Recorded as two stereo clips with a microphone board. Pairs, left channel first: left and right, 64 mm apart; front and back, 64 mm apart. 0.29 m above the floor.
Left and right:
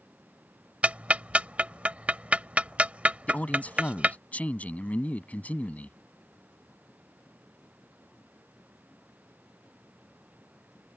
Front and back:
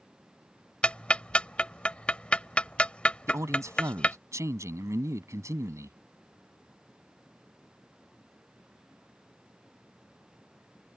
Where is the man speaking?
155° left.